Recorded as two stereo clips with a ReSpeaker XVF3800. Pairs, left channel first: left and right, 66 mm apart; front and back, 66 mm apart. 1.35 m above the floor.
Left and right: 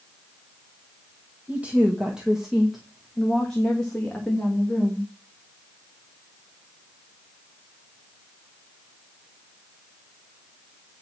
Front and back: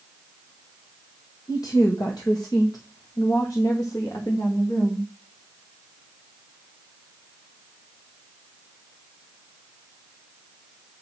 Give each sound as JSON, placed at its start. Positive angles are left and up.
{"t": 1.5, "sound": "a woman speaking", "azimuth_deg": -20, "distance_m": 1.7}